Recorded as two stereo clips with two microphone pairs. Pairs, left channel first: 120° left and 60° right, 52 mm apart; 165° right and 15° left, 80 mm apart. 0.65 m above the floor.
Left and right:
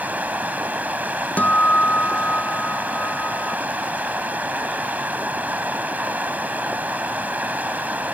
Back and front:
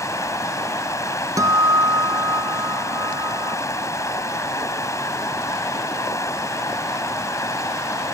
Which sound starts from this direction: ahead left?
A guitar, at 1.4 s.